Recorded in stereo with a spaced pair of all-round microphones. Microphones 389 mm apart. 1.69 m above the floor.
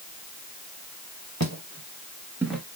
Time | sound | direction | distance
1.4 | footsteps | 40° right (ahead or behind) | 2.5 m